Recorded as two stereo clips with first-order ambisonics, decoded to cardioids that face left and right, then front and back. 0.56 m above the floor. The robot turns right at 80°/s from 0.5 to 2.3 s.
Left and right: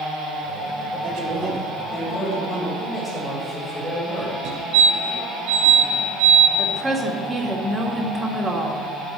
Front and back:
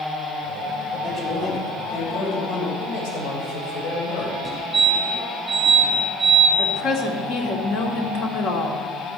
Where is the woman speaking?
15° right, 1.8 m.